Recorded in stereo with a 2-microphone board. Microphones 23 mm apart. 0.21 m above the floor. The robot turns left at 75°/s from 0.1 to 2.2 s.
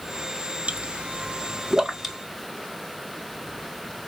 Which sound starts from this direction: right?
A pop, at 0.7 s.